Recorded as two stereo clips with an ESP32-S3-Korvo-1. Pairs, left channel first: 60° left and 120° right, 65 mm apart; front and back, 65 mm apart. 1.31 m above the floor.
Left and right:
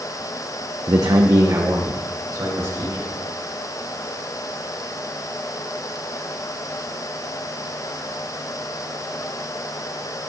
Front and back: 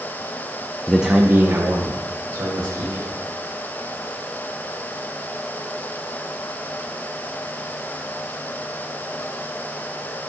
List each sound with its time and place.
0.9 s a man speaking: 85° right, 0.6 m; by 3.1 s 160° right, 2.5 m